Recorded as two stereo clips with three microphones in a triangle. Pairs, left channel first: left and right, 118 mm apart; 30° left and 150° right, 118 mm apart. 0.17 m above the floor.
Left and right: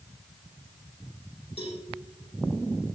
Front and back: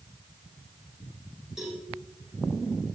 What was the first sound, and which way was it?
A cowbell, 125° left.